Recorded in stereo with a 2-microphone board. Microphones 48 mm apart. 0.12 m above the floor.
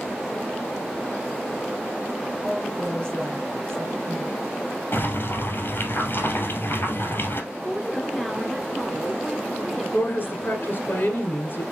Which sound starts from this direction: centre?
A woman speaking, at 7.5 s.